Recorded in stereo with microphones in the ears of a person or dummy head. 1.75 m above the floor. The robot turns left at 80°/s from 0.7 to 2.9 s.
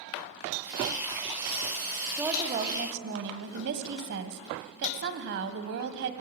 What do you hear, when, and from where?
2.2 s a woman speaking: 5° right, 1.6 m; by 6.1 s 60° right, 1.6 m